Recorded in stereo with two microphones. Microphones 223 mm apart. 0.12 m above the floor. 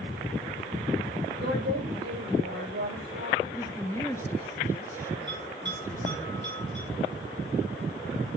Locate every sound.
1.4 s a woman speaking: 55° right (ahead or behind), 9.5 m
3.4 s a woman speaking: 15° left (ahead or behind), 1.4 m
5.3 s a bell: 50° right (ahead or behind), 9.5 m